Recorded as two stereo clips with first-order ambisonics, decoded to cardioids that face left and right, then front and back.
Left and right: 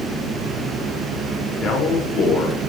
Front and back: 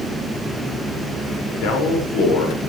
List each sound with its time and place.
1.6 s a man speaking: 25° left, 6 m